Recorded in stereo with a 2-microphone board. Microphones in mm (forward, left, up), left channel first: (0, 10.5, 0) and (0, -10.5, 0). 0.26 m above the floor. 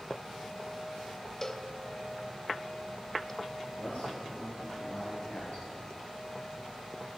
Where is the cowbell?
20° left (ahead or behind), 0.7 m.